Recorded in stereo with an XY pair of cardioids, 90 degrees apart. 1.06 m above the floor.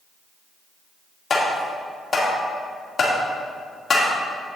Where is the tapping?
45° left, 2 m.